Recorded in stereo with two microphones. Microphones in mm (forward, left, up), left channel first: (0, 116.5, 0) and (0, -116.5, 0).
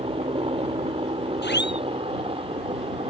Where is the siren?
45° left (ahead or behind).